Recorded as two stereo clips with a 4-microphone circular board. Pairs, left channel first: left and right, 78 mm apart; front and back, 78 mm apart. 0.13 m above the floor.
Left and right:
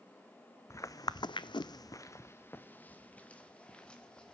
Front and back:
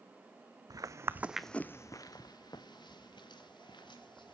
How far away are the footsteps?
About 0.7 m.